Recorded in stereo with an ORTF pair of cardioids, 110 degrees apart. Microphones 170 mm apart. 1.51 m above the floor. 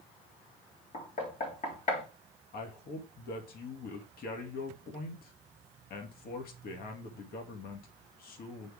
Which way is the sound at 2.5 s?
60° left.